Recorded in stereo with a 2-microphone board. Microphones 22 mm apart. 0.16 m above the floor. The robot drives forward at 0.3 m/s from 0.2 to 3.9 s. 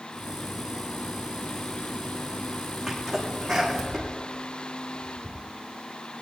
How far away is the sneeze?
About 8.5 m.